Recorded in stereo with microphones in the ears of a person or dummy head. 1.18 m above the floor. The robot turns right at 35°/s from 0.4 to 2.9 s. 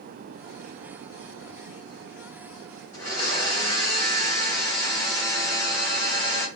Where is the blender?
20° left (ahead or behind), 1.1 m.